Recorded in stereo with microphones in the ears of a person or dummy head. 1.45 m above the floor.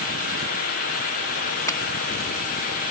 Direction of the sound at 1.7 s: 15° left (ahead or behind).